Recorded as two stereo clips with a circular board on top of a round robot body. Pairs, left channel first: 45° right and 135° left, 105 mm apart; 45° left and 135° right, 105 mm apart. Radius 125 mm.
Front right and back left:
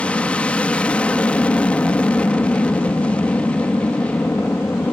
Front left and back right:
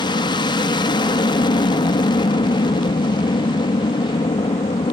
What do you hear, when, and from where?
0.0 s an aircraft: 30° left